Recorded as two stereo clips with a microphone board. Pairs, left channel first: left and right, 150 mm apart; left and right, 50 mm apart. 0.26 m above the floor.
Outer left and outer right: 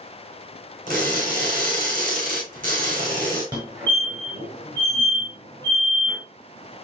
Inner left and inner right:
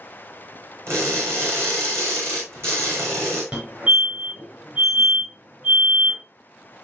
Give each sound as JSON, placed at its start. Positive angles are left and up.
{"t": 0.9, "sound": "crushing", "side_deg": -60, "distance_m": 5.5}
{"t": 3.5, "sound": "a fire alarm", "side_deg": -30, "distance_m": 6.0}